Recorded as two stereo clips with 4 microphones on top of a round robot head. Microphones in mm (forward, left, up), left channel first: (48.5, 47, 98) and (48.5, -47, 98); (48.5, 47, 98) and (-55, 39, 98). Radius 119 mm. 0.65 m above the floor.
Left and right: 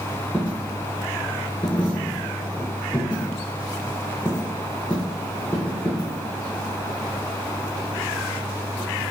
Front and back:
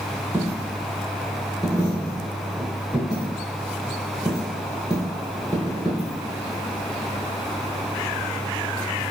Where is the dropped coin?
160° left, 0.6 m.